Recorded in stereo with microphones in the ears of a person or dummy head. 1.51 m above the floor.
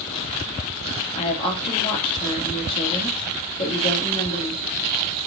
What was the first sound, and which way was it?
A woman speaking, 25° left (ahead or behind).